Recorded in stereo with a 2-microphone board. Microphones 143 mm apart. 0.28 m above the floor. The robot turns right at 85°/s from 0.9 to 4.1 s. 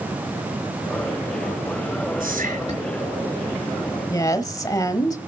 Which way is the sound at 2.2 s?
90° right.